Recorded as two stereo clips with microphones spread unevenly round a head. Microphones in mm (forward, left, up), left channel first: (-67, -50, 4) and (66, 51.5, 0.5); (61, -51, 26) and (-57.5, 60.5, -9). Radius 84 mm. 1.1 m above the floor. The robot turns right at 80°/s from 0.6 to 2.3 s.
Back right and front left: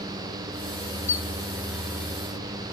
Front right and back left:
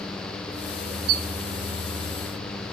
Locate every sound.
1.1 s a squeak: 140° left, 1.4 m; by 1.3 s 155° left, 1.4 m